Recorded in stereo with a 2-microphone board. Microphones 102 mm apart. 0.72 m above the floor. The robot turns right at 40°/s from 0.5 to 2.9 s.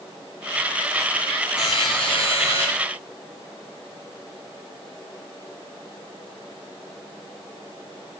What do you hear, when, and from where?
1.6 s a buzzer: 50° left, 5.5 m; by 2.7 s 95° left, 5.5 m